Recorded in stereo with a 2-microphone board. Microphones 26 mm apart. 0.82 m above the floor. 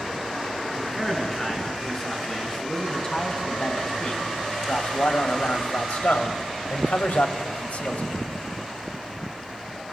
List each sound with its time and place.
0.7 s a man speaking: 15° left (ahead or behind), 8 m; by 8.1 s 65° left (ahead or behind), 3.5 m